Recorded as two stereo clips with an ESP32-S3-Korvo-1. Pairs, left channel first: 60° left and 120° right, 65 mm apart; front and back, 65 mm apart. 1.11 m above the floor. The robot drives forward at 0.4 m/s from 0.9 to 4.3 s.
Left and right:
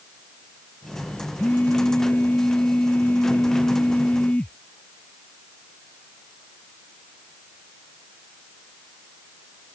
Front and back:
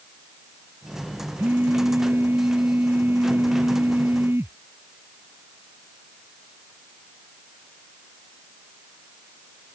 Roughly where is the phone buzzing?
Behind left.